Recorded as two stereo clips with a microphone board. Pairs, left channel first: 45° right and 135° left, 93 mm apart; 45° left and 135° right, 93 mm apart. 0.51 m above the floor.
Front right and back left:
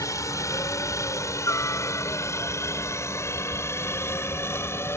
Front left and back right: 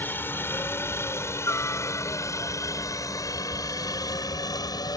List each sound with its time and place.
0.0 s a helicopter: 10° right; by 5.0 s 10° left